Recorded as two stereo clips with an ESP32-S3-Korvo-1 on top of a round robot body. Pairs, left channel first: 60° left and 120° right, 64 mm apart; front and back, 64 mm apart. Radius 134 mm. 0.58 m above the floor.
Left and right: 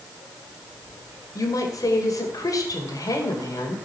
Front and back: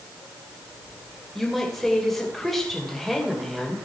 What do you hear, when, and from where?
1.4 s a woman speaking: 85° left, 2.5 m